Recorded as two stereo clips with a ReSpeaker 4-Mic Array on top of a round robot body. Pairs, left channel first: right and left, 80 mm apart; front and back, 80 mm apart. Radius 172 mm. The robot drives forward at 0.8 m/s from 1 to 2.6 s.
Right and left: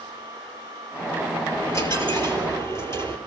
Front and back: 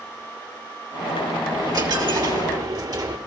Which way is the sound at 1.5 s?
140° right.